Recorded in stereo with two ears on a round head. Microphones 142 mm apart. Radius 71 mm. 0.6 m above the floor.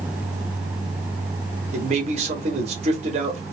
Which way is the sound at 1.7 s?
45° right (ahead or behind).